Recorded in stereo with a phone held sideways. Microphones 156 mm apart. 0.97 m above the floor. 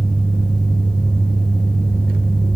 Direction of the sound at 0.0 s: 60° left (ahead or behind).